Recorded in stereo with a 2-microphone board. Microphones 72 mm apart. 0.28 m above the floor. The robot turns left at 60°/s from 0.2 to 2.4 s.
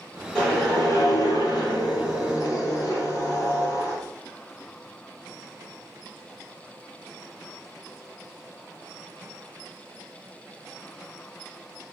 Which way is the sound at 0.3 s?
165° left.